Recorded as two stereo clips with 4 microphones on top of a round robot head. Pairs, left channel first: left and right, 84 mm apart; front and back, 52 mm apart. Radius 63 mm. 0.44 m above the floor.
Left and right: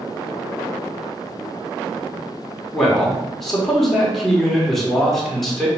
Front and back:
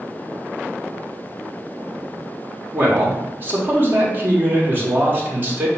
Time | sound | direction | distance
2.7 | a man speaking | 175° left | 1.4 m